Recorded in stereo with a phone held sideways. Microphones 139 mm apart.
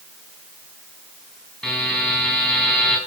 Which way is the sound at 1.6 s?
5° left (ahead or behind).